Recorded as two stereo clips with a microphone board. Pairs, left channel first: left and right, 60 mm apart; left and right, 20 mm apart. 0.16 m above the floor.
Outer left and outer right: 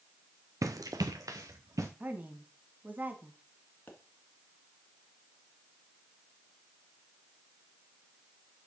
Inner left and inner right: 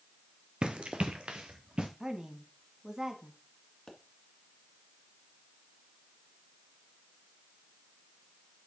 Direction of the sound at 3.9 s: 30° left (ahead or behind).